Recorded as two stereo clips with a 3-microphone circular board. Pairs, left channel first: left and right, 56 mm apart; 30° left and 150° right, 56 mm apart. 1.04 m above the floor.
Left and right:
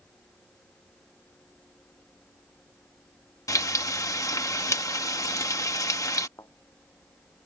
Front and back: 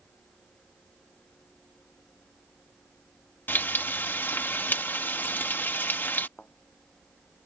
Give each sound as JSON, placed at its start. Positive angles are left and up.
{"t": 3.5, "sound": "frying", "azimuth_deg": 85}
{"t": 6.4, "sound": "a thud", "azimuth_deg": 90}